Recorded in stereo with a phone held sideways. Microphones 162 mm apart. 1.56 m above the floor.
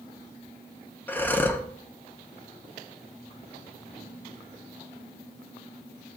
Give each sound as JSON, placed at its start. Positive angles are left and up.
{"t": 1.1, "sound": "breathing", "side_deg": 10, "distance_m": 0.7}